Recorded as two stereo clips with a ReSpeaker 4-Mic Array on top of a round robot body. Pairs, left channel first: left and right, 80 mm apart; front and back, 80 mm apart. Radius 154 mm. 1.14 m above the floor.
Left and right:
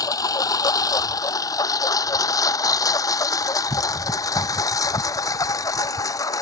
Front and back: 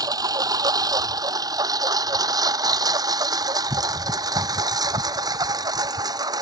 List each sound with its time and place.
0.0 s a lawn mower: 135° left; by 6.4 s 140° left